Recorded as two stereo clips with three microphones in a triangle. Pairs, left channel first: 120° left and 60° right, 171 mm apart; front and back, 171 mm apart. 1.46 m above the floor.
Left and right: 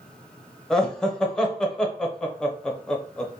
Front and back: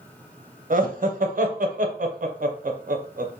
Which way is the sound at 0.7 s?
155° right.